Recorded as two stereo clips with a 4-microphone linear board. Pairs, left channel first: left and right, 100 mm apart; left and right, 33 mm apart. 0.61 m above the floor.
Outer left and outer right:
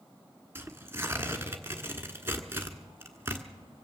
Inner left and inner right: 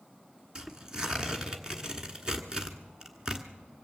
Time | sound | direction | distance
0.6 | tearing paper | 25° right (ahead or behind) | 1.3 m